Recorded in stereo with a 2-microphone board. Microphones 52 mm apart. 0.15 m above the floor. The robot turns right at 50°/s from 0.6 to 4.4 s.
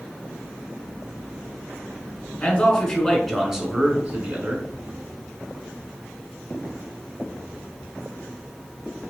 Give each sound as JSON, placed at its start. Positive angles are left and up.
{"t": 2.4, "sound": "a man speaking", "azimuth_deg": 140, "distance_m": 1.3}